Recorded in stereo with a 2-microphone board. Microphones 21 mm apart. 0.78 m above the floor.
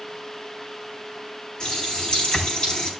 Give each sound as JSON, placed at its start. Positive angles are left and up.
{"t": 1.6, "sound": "a running tap", "side_deg": 55, "distance_m": 4.0}